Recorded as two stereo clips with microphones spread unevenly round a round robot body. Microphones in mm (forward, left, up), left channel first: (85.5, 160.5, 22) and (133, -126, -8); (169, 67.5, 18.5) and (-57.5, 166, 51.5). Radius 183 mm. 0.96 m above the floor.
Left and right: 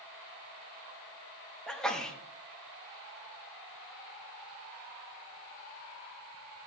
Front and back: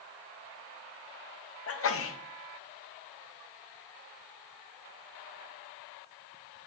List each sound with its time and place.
1.7 s a sneeze: 10° left, 1.0 m